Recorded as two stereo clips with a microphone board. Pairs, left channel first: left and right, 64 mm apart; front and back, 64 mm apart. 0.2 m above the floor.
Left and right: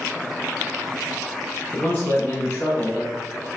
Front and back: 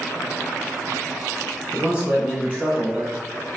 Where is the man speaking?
130° left, 1.2 m.